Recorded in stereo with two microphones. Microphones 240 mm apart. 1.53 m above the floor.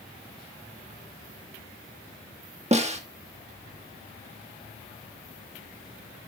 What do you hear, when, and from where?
2.7 s a snare drum: 25° right (ahead or behind), 1.4 m